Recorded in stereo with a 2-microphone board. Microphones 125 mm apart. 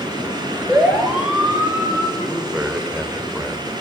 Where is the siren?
10° right (ahead or behind), 7 m; by 2.1 s 20° right (ahead or behind), 7.5 m.